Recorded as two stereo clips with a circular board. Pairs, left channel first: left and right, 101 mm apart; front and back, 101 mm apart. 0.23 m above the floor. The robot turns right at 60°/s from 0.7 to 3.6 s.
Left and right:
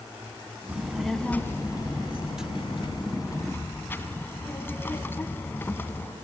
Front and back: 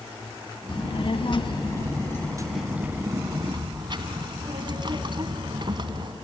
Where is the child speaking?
20° right, 1.2 m; by 6.1 s 155° left, 1.2 m.